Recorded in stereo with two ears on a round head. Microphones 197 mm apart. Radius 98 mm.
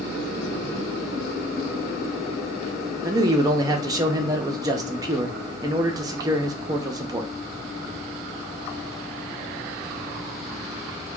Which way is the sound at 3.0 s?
20° right (ahead or behind).